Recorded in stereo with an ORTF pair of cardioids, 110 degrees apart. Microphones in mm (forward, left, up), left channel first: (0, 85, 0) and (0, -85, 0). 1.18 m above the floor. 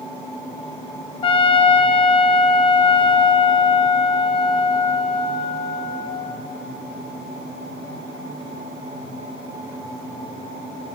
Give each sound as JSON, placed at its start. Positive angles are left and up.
{"t": 1.2, "sound": "a trumpet", "azimuth_deg": 30, "distance_m": 0.9}